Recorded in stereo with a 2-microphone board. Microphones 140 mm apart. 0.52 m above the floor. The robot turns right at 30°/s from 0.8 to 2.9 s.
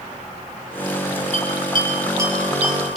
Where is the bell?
45° right (ahead or behind), 5 m; by 3.0 s centre (ahead or behind), 5 m.